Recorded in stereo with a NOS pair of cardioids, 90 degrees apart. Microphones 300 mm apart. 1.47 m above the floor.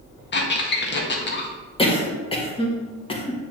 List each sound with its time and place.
0.3 s a squeak: 35° left, 1.4 m
1.8 s a cough: 15° left, 1.8 m